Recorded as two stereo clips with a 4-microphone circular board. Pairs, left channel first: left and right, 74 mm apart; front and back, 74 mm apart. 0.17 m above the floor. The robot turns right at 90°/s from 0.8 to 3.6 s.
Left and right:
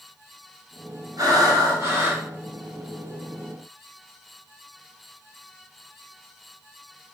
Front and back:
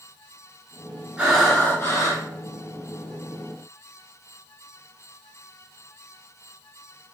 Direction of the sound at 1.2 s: 110° right.